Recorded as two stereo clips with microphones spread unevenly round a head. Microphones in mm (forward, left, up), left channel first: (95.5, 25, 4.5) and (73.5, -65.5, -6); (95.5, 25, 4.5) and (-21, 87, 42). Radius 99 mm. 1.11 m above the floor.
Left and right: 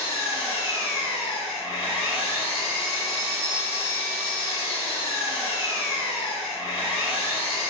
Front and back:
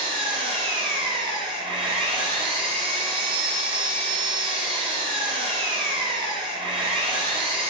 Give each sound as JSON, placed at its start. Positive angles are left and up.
{"t": 0.0, "sound": "an engine running", "azimuth_deg": 110, "distance_m": 0.8}